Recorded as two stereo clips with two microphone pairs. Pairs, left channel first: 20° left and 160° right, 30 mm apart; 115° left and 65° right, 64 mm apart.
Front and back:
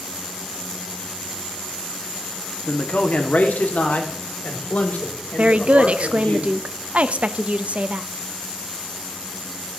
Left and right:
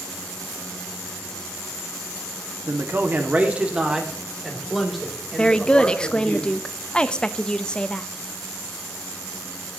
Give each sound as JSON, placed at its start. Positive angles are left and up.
{"t": 2.7, "sound": "a man speaking", "azimuth_deg": -20, "distance_m": 1.4}
{"t": 5.4, "sound": "a woman speaking", "azimuth_deg": -170, "distance_m": 0.5}